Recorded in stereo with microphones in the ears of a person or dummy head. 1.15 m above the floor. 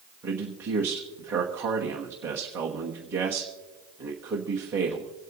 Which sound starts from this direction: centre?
A man speaking, at 0.2 s.